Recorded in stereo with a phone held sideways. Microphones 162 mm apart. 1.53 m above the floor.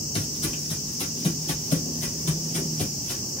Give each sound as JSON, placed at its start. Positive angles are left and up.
{"t": 0.1, "sound": "footsteps", "side_deg": 40, "distance_m": 4.0}